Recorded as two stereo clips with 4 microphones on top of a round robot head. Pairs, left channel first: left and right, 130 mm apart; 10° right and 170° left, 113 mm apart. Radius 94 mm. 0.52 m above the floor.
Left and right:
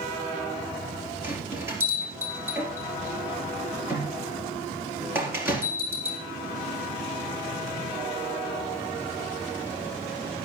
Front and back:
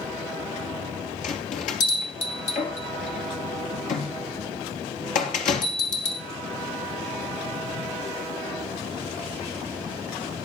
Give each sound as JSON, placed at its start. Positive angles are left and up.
{"t": 1.2, "sound": "a bell", "azimuth_deg": -15, "distance_m": 3.0}